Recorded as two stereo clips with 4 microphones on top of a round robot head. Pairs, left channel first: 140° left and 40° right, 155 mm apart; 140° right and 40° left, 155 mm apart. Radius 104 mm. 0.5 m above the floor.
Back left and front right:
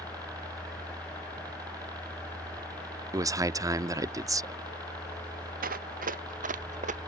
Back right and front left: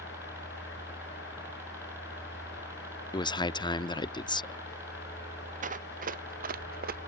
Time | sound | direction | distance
0.0 | a helicopter | 15° right | ?
3.1 | a man speaking | 95° right | ?
5.6 | running footsteps | 5° right | ?